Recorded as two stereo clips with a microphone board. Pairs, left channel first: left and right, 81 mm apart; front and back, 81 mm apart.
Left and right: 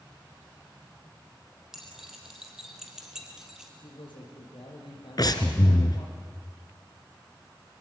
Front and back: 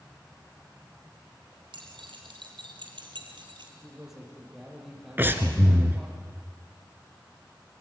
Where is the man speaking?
95° left, 7 m.